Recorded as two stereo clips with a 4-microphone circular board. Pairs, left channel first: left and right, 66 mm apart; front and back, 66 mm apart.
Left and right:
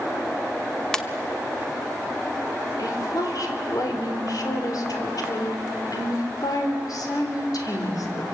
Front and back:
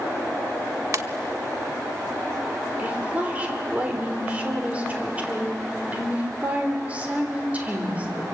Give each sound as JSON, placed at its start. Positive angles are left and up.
{"t": 0.9, "sound": "a ringtone", "azimuth_deg": 170, "distance_m": 1.0}
{"t": 2.8, "sound": "a woman speaking", "azimuth_deg": 110, "distance_m": 3.5}